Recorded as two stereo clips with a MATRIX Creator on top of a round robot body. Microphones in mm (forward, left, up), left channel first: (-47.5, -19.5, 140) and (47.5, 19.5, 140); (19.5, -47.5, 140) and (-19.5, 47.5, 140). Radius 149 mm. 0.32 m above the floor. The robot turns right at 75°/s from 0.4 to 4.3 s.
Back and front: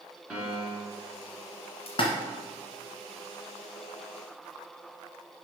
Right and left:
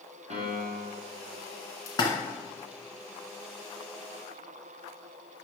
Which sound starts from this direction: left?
A piano, at 0.3 s.